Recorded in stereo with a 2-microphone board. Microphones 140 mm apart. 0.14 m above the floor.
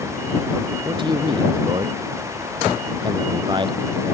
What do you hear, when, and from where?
0.8 s a man speaking: 35° right (ahead or behind)